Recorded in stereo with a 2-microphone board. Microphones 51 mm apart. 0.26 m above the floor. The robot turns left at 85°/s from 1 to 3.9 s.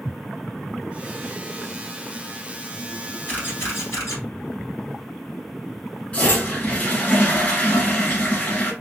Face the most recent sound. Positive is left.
turn(degrees=35)  # may be behind; listen again after turning